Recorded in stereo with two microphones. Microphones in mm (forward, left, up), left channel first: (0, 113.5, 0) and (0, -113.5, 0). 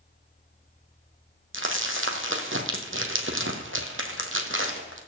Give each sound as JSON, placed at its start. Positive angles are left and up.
{"t": 1.5, "sound": "crumpling", "side_deg": -60, "distance_m": 1.6}